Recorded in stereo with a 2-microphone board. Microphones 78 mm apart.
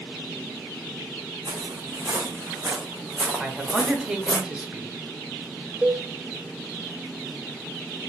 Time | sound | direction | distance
1.4 | footsteps | 60° right (ahead or behind) | 1.4 m
3.4 | a man speaking | 15° right (ahead or behind) | 0.9 m
5.8 | a cowbell | 15° right (ahead or behind) | 0.8 m